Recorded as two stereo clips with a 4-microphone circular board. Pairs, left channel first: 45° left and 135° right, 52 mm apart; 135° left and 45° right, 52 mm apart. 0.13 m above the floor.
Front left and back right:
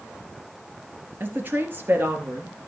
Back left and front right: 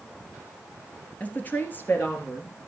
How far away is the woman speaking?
About 2 m.